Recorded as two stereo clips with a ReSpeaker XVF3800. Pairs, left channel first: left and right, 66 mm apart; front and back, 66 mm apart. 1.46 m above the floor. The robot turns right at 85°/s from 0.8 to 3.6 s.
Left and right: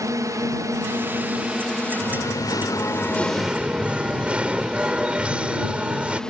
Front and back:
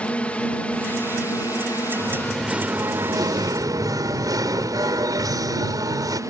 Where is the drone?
70° right; by 6.3 s 170° left.